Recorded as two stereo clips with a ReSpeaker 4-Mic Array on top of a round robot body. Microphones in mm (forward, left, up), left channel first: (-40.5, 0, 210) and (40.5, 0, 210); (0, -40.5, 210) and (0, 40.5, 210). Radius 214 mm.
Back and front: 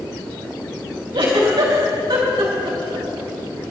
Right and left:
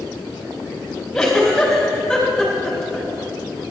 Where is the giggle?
Straight ahead, 4 m.